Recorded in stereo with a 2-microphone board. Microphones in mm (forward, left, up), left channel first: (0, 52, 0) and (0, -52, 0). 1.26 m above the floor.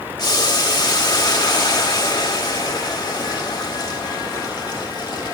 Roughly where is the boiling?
Left.